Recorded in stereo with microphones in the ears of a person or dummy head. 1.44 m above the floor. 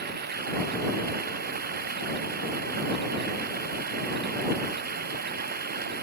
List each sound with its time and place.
0.0 s running water: 50° right (ahead or behind)